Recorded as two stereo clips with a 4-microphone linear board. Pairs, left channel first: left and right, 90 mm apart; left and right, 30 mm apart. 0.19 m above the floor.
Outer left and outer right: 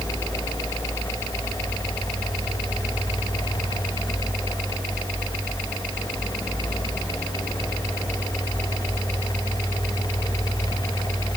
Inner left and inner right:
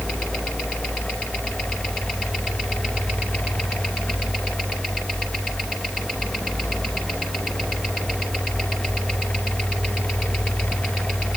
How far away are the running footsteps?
I don't hear running footsteps.